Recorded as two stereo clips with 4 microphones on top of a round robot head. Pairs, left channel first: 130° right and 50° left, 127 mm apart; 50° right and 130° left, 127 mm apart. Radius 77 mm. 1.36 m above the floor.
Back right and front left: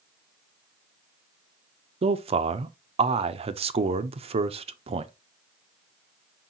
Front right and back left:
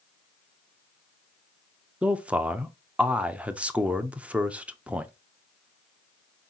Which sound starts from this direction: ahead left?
A man speaking, at 2.0 s.